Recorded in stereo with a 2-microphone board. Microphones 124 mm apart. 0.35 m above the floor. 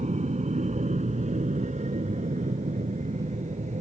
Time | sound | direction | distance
0.0 | an aircraft | 70° right (ahead or behind) | ?